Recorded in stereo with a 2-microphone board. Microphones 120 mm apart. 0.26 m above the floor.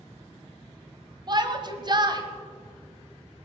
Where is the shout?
35° right (ahead or behind), 1.4 m.